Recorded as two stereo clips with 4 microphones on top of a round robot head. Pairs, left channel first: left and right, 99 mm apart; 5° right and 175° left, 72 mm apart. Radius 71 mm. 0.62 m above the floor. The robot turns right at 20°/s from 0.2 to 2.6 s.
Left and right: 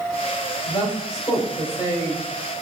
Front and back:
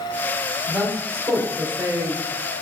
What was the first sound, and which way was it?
A woman speaking, 110° left.